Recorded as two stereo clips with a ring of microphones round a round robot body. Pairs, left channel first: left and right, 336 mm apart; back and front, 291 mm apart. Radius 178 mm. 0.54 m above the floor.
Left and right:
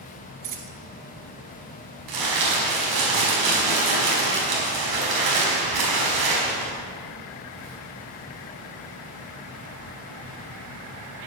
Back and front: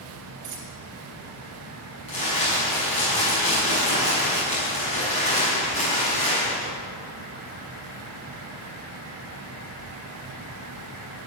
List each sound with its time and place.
0.4 s a dropped coin: 55° right, 2 m
2.1 s crumpling: 110° right, 5.5 m